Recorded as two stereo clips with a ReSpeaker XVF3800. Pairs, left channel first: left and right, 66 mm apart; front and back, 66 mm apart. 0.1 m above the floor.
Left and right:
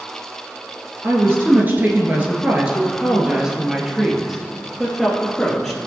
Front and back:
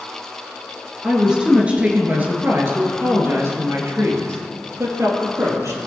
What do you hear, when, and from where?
1.0 s a woman speaking: 105° right, 2.0 m; by 5.8 s 175° left, 3 m